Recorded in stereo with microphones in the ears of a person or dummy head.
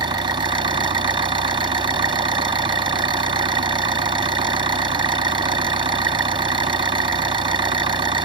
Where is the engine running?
25° right (ahead or behind).